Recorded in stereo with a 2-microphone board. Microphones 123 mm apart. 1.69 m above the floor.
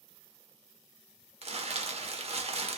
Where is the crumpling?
55° right (ahead or behind), 0.6 m.